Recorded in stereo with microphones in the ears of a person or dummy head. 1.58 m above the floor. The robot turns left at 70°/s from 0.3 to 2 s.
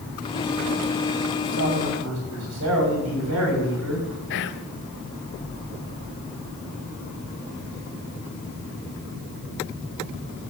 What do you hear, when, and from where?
1.4 s a man speaking: 50° right, 7.5 m; by 4.1 s 90° right, 7.5 m
4.3 s whispering: 60° left (ahead or behind), 1.3 m